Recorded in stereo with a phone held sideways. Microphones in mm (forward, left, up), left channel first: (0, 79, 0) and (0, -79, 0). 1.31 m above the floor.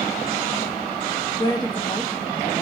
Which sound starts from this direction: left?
A woman speaking, at 1.4 s.